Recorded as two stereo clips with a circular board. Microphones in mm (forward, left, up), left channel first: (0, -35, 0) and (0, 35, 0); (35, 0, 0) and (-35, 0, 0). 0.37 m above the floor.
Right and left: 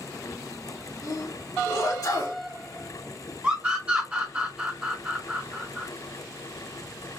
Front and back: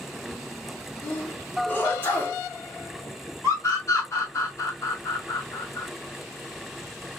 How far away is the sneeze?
About 3.5 m.